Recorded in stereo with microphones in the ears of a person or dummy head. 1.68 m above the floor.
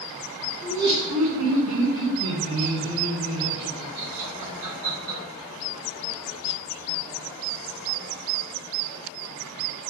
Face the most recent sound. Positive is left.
turn(degrees=-75)  # may be behind; listen again after turning